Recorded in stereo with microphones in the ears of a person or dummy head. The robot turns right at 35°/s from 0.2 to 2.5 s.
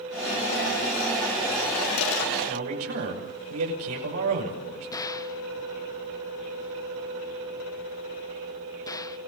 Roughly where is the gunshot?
Centre.